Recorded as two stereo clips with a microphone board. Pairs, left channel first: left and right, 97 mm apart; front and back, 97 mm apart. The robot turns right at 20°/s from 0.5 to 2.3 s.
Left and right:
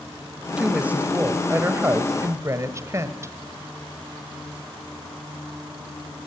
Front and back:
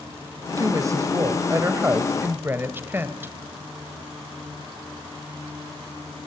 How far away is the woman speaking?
About 1.6 m.